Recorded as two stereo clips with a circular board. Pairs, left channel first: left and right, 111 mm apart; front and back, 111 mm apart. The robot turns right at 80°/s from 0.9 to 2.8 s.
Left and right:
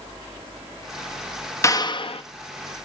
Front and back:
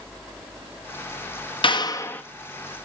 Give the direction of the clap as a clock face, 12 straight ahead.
11 o'clock.